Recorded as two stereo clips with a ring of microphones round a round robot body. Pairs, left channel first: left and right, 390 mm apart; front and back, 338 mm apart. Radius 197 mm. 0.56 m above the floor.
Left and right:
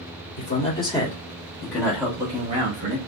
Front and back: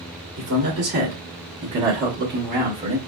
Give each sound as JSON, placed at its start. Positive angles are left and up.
{"t": 0.4, "sound": "a man speaking", "azimuth_deg": 140, "distance_m": 1.5}